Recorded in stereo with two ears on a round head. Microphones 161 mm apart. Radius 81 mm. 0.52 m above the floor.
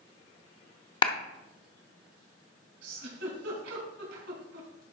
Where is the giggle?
70° right (ahead or behind), 3.5 m.